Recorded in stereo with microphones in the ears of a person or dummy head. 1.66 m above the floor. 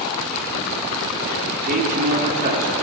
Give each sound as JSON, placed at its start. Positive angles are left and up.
{"t": 1.7, "sound": "a man speaking", "side_deg": -45, "distance_m": 1.7}